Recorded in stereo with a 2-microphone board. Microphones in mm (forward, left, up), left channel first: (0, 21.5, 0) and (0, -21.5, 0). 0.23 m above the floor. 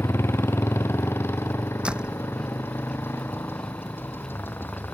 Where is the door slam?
20° right (ahead or behind).